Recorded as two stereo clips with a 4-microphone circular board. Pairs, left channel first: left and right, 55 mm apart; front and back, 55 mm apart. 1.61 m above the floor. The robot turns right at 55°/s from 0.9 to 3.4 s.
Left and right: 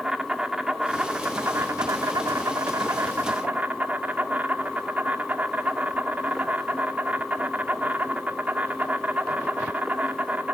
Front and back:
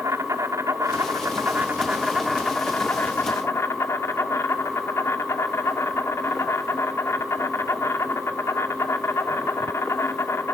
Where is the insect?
170° right, 1.4 m; by 10.5 s 30° right, 1.4 m.